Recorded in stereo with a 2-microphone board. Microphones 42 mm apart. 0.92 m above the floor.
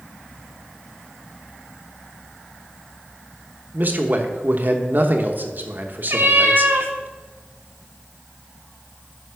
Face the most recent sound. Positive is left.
turn(degrees=-60)  # may be behind; listen again after turning